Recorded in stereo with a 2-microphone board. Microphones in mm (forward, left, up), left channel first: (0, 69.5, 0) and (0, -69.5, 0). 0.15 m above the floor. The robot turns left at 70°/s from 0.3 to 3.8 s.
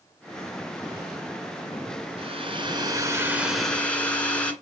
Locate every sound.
2.2 s a hair dryer: 80° right, 2 m; by 4.5 s 165° left, 2 m